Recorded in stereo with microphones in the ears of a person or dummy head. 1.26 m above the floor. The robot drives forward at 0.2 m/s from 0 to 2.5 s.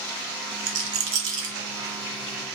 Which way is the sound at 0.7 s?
80° right.